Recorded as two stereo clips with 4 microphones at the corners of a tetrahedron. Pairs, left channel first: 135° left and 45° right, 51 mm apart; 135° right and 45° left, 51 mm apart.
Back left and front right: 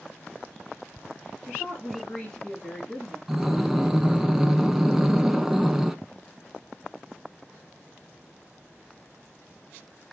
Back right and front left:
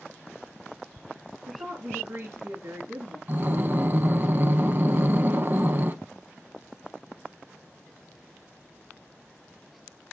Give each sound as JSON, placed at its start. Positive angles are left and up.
{"t": 1.5, "sound": "a woman speaking", "azimuth_deg": 60, "distance_m": 2.5}
{"t": 3.3, "sound": "breathing", "azimuth_deg": 30, "distance_m": 0.6}